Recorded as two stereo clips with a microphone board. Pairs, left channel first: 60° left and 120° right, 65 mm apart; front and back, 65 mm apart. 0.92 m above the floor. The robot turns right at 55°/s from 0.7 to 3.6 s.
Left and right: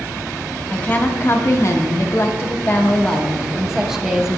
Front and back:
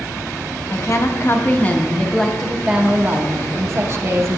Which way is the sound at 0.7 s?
Straight ahead.